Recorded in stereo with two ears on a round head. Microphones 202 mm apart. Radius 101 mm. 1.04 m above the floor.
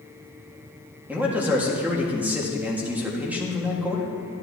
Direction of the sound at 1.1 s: 5° right (ahead or behind).